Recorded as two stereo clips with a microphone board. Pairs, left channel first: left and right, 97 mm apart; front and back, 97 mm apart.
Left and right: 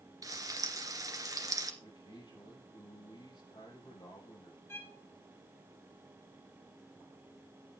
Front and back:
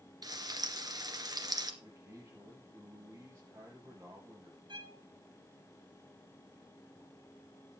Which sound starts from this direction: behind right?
Frying, at 0.2 s.